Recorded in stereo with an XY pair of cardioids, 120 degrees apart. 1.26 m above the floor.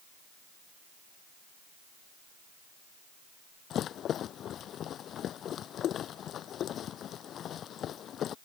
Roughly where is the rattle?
Ahead left.